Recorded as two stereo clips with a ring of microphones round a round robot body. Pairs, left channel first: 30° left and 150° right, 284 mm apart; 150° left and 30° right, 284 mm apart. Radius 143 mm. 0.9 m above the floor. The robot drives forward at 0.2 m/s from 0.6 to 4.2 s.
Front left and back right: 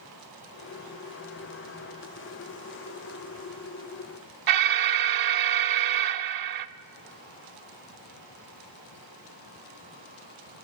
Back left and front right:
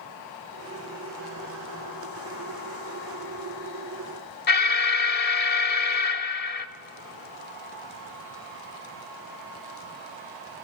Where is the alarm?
155° right, 0.9 m.